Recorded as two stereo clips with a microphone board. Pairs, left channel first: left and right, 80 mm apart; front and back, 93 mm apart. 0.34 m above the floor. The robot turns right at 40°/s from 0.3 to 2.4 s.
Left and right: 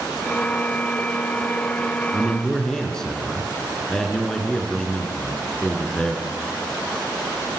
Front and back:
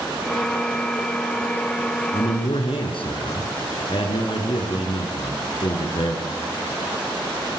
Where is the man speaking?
5° right, 4.5 m; by 6.3 s 5° left, 4.5 m.